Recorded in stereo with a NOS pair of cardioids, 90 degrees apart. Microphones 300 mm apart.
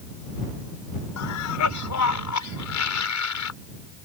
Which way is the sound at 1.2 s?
70° left.